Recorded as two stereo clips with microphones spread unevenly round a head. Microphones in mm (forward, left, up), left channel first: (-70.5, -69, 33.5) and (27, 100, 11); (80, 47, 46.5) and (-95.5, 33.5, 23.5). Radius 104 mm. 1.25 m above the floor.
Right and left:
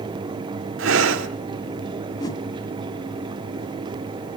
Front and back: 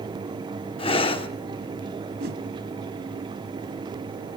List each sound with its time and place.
0.8 s breathing: 50° left, 1.1 m
2.2 s a whoosh: 170° right, 1.3 m